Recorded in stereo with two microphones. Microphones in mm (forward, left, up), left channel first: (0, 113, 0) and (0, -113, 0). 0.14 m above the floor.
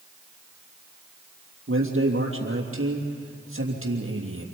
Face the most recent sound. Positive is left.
turn(degrees=-70)  # may be behind; listen again after turning